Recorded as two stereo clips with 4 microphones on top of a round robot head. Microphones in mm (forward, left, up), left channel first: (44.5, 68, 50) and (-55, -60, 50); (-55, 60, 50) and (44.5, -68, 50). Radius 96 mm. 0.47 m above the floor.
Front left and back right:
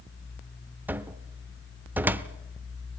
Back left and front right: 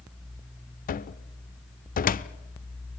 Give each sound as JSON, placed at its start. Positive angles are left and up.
{"t": 0.9, "sound": "a cupboard door", "azimuth_deg": 155, "distance_m": 0.9}